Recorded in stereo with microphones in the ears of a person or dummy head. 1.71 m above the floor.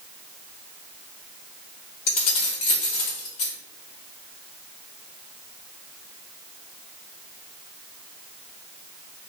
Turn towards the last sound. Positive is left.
turn(degrees=40)  # may be behind; listen again after turning